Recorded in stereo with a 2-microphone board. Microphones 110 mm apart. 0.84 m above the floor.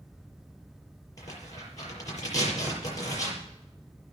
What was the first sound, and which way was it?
Tearing paper, 30° left (ahead or behind).